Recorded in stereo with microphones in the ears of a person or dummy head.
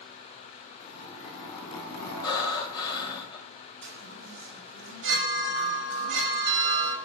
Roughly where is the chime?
Right.